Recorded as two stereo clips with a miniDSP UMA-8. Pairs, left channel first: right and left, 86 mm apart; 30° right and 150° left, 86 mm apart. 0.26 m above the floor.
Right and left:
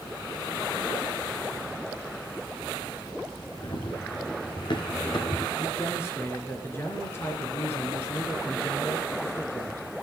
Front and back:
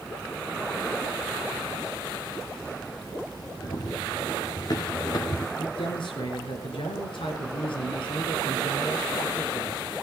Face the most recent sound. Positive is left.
turn(degrees=-30)